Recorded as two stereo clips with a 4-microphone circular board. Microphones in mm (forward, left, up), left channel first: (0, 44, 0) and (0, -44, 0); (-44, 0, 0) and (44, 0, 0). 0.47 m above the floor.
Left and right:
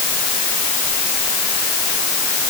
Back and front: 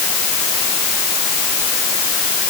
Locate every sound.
Only background noise.